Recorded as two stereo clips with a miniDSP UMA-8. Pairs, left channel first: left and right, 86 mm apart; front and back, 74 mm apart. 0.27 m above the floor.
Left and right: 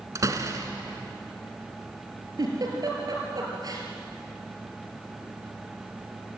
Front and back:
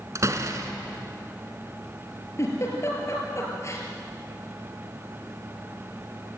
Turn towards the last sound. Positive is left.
turn(degrees=-50)